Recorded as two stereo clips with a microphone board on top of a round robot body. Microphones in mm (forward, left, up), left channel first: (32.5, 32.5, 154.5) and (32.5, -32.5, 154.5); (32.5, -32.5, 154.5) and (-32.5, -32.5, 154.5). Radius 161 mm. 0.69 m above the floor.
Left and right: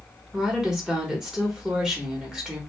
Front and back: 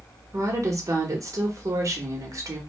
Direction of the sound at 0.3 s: 170° right.